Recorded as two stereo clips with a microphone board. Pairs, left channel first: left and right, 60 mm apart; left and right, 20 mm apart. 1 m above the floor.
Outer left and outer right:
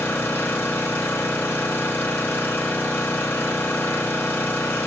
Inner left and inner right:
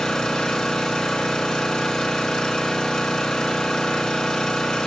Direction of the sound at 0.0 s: 30° left (ahead or behind).